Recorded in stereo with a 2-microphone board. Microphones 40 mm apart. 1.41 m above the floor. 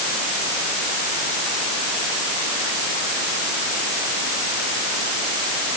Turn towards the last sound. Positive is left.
No sound to turn to.